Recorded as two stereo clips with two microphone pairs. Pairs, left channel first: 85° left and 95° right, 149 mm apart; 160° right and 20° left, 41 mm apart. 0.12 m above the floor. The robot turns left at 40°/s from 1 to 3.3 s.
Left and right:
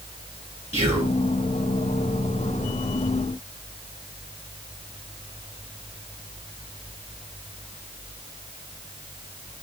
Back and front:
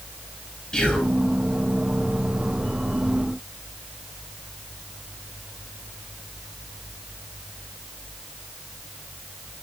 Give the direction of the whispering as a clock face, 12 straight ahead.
4 o'clock.